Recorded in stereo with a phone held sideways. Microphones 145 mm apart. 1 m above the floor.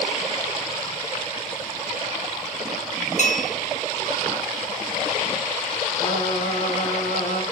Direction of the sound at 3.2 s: 55° left (ahead or behind).